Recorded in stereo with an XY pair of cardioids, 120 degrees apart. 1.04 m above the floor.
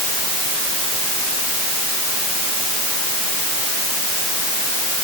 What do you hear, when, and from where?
Only background noise.